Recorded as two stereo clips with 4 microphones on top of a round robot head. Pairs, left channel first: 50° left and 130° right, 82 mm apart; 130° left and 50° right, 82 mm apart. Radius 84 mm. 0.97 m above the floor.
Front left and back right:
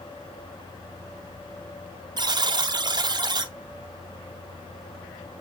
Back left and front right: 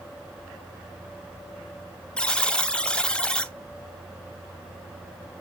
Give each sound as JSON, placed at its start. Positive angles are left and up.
{"t": 2.2, "sound": "a buzzer", "azimuth_deg": -150, "distance_m": 0.7}